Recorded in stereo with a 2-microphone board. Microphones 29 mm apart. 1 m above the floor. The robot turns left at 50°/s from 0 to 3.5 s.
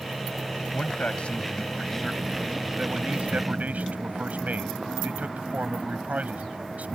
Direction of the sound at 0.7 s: 70° left.